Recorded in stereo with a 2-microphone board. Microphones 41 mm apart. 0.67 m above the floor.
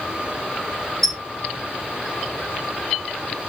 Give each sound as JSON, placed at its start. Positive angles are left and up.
{"t": 1.0, "sound": "a squeak", "side_deg": 5, "distance_m": 0.9}